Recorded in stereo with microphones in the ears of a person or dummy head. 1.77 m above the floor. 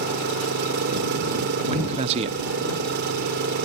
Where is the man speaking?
25° right (ahead or behind).